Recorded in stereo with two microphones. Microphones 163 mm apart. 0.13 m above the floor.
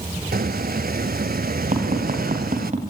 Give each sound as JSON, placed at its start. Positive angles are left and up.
{"t": 0.3, "sound": "a squeak", "side_deg": -65, "distance_m": 0.7}
{"t": 1.7, "sound": "tapping", "side_deg": -50, "distance_m": 7.5}